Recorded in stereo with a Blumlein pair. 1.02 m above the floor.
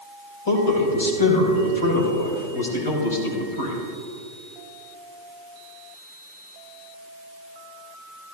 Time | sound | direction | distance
0.5 | a man speaking | 60° left | 4 m